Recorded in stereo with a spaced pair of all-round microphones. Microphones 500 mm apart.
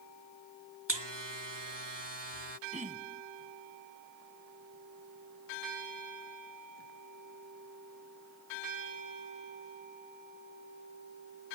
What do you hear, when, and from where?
0.9 s a buzzer: 60° right (ahead or behind)
2.7 s throat clearing: 15° right (ahead or behind)